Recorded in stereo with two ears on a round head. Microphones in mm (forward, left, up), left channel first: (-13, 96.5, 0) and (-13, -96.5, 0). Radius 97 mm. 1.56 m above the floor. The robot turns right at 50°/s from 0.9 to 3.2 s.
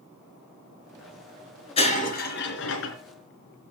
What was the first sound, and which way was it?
Breaking glass, 30° left.